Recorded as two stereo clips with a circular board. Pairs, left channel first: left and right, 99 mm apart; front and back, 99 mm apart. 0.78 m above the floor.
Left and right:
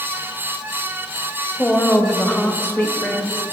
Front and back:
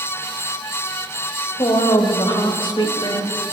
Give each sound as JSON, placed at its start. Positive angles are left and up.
{"t": 1.6, "sound": "a woman speaking", "azimuth_deg": 25, "distance_m": 0.8}